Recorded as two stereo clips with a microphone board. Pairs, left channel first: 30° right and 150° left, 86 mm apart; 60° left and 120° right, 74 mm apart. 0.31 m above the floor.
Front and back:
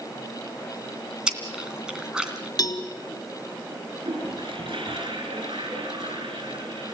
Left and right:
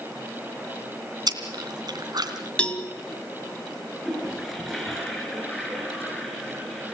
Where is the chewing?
130° right, 2.5 m.